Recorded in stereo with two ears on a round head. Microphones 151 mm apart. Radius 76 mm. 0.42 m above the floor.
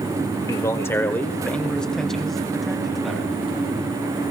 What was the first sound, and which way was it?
A man speaking, 20° left (ahead or behind).